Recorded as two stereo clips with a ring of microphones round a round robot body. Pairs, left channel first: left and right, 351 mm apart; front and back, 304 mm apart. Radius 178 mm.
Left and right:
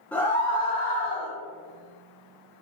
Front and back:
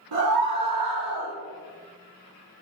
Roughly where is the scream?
Behind.